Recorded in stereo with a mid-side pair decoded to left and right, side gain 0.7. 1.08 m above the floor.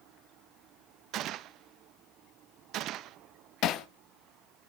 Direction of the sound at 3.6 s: 50° left.